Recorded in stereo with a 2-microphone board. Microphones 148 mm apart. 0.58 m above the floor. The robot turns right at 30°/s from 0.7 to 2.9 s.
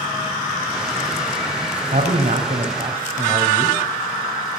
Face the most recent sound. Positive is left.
turn(degrees=-45)  # may be behind; listen again after turning